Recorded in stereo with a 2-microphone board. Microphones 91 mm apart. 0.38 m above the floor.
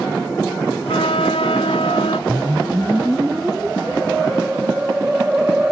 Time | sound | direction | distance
0.9 | a flute | 85° left | ?
2.3 | a whoosh | 15° right (ahead or behind) | ?